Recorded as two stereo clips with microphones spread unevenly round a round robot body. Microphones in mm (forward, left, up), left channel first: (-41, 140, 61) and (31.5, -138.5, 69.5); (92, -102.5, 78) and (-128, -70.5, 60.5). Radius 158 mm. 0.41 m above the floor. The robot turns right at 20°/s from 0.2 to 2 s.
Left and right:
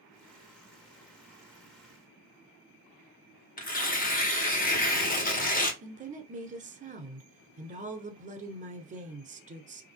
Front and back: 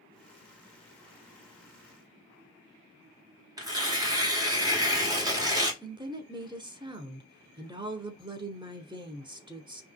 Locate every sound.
3.6 s tearing paper: 120° left, 1.4 m
5.8 s a woman speaking: 130° right, 1.3 m